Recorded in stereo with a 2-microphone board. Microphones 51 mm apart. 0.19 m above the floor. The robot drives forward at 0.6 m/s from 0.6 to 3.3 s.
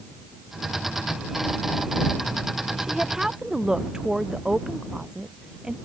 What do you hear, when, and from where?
2.8 s a woman speaking: 10° right (ahead or behind)